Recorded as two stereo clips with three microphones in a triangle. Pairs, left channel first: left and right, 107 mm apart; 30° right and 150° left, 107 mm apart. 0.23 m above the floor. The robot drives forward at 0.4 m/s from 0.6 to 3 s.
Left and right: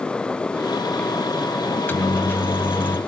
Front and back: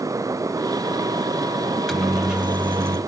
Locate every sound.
1.7 s a microwave: 40° left, 0.9 m; by 3.0 s 135° left, 0.9 m